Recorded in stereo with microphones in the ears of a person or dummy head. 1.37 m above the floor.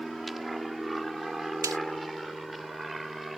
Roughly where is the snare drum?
Centre.